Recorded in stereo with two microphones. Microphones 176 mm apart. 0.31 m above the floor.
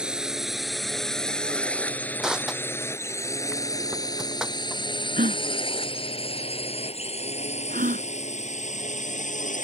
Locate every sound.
0.0 s a drone: 5° right (ahead or behind); by 9.6 s 45° left (ahead or behind)
2.2 s crushing: 5° right (ahead or behind)
5.2 s a gasp: 50° right (ahead or behind)